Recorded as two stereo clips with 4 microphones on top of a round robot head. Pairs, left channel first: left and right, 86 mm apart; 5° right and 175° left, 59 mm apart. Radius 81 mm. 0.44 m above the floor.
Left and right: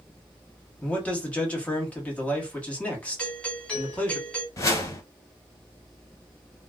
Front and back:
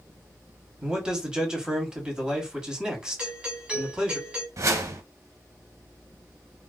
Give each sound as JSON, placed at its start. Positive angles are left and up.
{"t": 0.8, "sound": "a man speaking", "azimuth_deg": 125, "distance_m": 1.4}
{"t": 3.2, "sound": "a doorbell", "azimuth_deg": 145, "distance_m": 1.9}
{"t": 4.6, "sound": "a whoosh", "azimuth_deg": 145, "distance_m": 0.9}